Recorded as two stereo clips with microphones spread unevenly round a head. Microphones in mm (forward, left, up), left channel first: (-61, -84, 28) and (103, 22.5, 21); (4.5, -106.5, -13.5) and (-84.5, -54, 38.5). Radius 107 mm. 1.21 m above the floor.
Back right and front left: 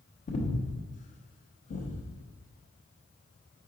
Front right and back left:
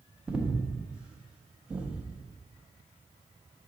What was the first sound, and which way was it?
Breathing, 105° right.